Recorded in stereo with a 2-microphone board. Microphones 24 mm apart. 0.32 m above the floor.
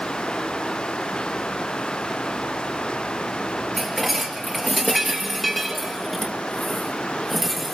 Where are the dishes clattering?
5° right (ahead or behind), 4 m.